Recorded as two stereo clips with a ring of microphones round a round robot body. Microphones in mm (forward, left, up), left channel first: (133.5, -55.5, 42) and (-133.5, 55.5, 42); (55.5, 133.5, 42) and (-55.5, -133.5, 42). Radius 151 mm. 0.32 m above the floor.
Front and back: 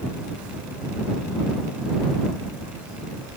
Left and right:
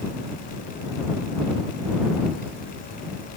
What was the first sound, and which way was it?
Only background noise.